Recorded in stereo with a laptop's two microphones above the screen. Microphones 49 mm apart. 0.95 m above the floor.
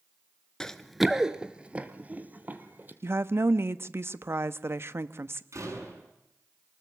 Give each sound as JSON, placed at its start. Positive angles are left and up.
{"t": 0.6, "sound": "running footsteps", "side_deg": 15, "distance_m": 0.9}
{"t": 3.0, "sound": "a woman speaking", "side_deg": -55, "distance_m": 1.1}
{"t": 5.5, "sound": "a door slam", "side_deg": -75, "distance_m": 8.0}